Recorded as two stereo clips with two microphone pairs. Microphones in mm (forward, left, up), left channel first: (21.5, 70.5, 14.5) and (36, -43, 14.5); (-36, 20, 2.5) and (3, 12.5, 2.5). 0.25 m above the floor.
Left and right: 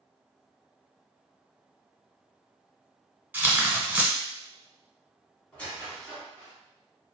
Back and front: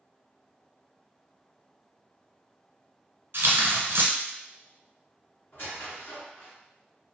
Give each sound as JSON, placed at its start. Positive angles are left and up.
{"t": 3.3, "sound": "tearing paper", "azimuth_deg": -10, "distance_m": 0.9}
{"t": 5.5, "sound": "a squeak", "azimuth_deg": 170, "distance_m": 1.6}